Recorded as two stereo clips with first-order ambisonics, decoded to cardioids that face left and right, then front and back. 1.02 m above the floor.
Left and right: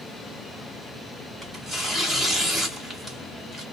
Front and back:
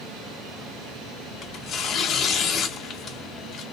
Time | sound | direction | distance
1.4 | tearing paper | 20° right | 0.9 m